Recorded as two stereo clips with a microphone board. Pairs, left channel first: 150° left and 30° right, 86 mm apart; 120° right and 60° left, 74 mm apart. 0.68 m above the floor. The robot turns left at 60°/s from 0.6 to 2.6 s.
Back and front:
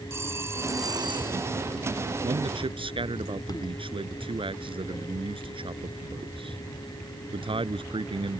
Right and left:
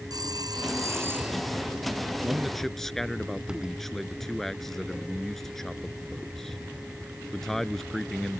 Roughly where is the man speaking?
Ahead.